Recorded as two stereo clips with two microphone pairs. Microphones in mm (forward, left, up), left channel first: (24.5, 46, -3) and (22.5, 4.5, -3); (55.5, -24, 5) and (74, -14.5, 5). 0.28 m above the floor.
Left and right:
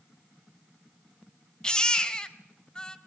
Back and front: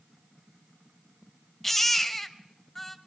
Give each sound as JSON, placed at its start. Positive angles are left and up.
{"t": 1.6, "sound": "a baby crying", "azimuth_deg": 135, "distance_m": 0.9}